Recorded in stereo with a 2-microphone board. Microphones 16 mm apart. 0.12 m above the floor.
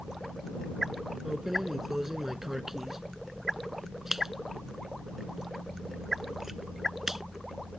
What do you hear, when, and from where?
1.2 s keys jangling: 20° right (ahead or behind)